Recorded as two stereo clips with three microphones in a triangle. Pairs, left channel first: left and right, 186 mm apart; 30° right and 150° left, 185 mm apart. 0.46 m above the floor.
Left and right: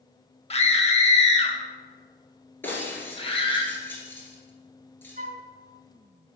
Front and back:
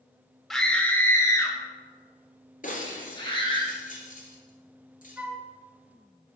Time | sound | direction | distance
0.5 | a scream | 60° left | 0.9 m
2.6 | breaking glass | 10° left | 1.7 m
5.2 | a flute | 130° right | 0.6 m